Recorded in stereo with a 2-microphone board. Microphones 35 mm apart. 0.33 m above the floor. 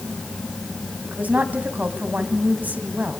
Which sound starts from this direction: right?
A woman speaking, at 1.0 s.